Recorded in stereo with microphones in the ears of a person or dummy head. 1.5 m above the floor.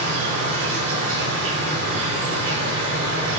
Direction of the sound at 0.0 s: 40° right (ahead or behind).